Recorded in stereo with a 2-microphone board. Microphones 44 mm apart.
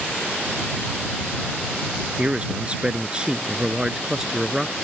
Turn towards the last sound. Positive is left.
turn(degrees=-10)  # may be behind; listen again after turning